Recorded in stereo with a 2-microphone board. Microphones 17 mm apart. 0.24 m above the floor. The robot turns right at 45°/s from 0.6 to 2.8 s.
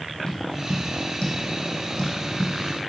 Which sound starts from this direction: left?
Tapping, at 0.3 s.